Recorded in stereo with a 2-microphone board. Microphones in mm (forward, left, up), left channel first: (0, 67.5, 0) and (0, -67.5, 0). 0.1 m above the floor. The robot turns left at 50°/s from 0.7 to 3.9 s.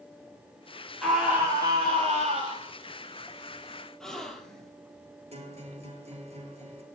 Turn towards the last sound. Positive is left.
turn(degrees=-50)  # may be behind; listen again after turning